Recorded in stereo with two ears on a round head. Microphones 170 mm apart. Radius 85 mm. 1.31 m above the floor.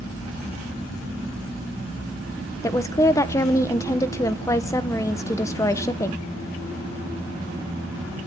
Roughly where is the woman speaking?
Centre.